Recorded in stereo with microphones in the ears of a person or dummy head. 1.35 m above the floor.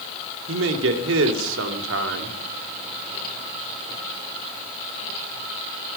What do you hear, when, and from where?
0.5 s a man speaking: 85° right, 3 m